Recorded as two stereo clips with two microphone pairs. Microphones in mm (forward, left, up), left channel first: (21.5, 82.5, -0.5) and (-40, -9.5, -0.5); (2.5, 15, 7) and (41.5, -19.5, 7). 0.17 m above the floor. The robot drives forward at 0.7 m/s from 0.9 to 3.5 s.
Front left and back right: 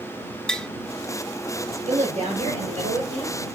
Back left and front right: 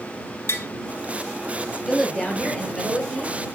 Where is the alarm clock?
I don't hear an alarm clock.